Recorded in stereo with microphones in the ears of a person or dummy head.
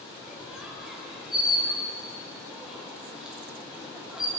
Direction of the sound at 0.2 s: 5° right (ahead or behind).